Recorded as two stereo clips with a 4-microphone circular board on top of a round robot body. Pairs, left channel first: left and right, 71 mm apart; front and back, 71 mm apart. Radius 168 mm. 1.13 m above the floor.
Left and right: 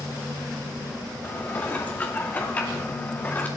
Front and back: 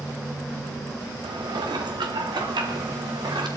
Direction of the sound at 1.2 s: 160° left.